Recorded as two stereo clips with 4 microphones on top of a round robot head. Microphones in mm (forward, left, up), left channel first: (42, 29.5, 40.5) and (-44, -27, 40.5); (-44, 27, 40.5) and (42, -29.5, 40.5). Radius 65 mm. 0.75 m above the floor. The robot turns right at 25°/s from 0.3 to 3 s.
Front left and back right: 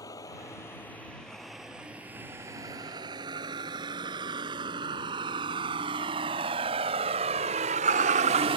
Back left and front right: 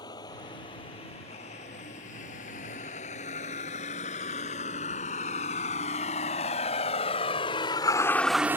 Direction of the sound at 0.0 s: 95° left.